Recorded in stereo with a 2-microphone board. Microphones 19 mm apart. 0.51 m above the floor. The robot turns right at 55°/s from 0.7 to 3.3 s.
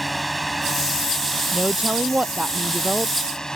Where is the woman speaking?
125° right; by 3.1 s 35° right.